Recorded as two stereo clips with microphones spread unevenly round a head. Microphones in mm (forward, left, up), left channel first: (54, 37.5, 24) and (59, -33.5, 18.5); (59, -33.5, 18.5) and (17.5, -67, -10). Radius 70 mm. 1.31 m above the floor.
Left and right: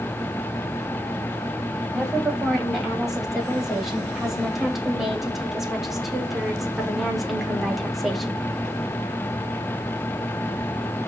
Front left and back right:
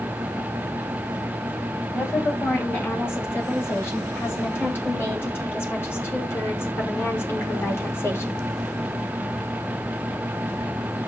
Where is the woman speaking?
Straight ahead, 9 m; by 8.4 s 5° left, 3.5 m.